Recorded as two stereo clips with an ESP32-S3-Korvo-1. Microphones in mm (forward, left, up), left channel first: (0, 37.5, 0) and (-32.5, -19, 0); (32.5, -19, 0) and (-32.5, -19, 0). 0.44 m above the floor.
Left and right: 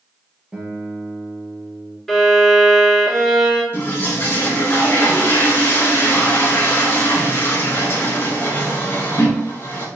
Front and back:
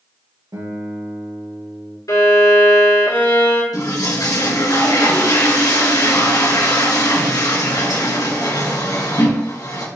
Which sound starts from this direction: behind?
A guitar, at 0.5 s.